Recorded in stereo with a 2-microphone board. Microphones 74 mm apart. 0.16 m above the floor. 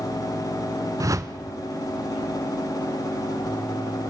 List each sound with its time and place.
1.0 s a whoosh: 45° right (ahead or behind), 1.1 m